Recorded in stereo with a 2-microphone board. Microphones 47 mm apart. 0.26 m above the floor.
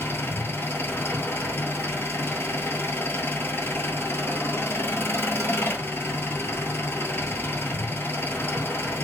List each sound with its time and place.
0.0 s an engine running: 55° left (ahead or behind), 1.1 m